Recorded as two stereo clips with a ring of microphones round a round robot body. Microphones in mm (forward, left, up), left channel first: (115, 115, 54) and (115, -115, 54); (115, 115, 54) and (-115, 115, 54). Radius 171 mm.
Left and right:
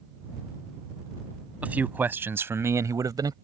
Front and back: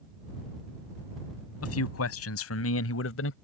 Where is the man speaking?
5° right; by 3.3 s 20° right.